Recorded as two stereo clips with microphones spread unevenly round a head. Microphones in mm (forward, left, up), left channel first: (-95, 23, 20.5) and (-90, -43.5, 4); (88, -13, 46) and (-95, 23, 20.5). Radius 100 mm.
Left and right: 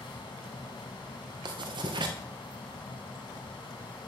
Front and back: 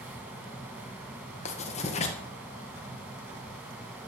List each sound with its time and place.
0.0 s a fan: 85° left, 2.5 m
1.4 s writing: 70° right, 2.0 m